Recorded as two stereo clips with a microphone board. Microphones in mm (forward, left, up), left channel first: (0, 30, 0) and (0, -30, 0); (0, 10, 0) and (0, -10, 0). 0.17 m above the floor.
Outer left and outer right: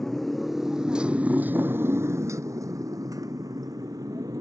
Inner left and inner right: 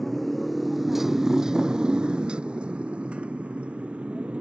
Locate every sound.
0.0 s a motorcycle: 10° left (ahead or behind); by 4.4 s 85° right